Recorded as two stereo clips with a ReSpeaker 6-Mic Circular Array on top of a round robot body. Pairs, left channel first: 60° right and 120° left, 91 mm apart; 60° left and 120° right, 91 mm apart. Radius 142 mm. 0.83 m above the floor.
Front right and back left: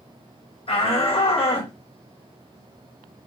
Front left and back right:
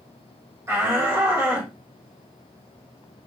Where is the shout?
55° right, 3.5 m.